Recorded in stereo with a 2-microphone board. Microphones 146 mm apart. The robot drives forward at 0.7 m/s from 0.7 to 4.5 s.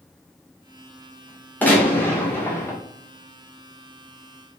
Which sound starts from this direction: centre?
A gunshot, at 1.6 s.